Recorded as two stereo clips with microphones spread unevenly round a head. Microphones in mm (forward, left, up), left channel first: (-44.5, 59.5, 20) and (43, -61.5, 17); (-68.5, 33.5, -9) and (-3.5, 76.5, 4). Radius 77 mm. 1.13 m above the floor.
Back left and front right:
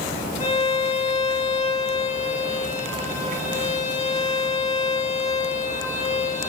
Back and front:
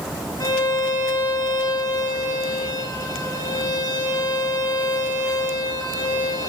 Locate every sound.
0.4 s a violin: 170° left, 4.5 m